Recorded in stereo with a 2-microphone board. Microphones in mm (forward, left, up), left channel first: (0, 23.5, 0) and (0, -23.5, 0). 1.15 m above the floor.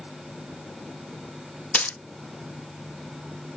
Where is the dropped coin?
30° left (ahead or behind), 0.5 m.